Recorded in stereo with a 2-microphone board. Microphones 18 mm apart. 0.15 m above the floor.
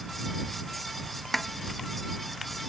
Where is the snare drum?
10° left (ahead or behind).